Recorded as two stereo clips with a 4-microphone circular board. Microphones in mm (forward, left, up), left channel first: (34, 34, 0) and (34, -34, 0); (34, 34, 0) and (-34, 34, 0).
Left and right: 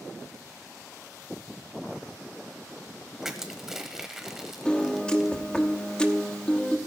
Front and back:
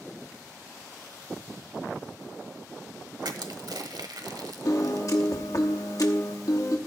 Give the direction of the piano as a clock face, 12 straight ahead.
11 o'clock.